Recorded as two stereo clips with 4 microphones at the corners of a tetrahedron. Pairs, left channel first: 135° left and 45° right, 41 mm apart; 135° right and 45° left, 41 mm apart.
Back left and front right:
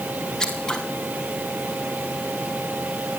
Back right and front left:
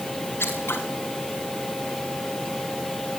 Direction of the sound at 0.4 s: 150° right.